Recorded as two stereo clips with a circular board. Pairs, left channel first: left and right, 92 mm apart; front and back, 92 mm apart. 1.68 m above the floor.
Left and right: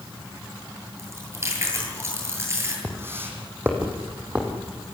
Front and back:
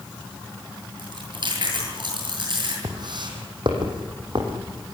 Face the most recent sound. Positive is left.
turn(degrees=-165)